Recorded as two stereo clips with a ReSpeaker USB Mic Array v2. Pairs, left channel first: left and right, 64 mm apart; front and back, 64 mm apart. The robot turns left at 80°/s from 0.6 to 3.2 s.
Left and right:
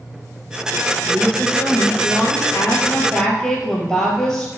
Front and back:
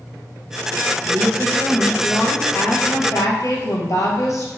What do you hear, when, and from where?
1.1 s a woman speaking: straight behind, 3 m; by 4.5 s 5° left, 3 m